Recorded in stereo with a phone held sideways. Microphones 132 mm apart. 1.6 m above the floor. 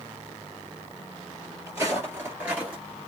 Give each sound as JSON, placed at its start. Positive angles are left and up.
{"t": 1.7, "sound": "footsteps", "side_deg": -20, "distance_m": 2.0}